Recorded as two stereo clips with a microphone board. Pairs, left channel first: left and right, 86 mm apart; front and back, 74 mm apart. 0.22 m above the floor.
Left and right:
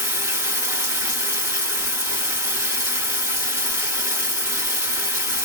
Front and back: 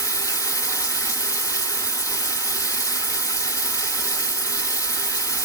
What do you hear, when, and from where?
0.0 s running water: 35° right, 2 m